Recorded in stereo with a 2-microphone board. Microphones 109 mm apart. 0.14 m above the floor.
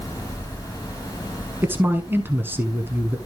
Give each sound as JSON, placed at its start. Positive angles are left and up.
{"t": 1.6, "sound": "a man speaking", "side_deg": -20, "distance_m": 1.1}